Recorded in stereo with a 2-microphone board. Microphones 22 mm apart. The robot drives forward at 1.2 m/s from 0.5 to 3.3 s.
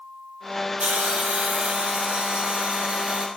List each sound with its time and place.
0.8 s a hiss: 80° right, 6.5 m; by 3.3 s 60° right (ahead or behind), 7.5 m